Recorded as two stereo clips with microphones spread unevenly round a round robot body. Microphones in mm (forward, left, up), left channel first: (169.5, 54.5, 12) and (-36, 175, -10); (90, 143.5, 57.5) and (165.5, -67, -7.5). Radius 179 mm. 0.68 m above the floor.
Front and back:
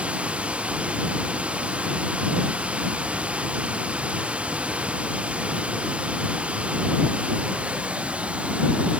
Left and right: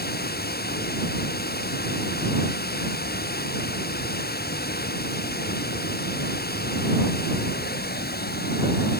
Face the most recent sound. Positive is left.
turn(degrees=65)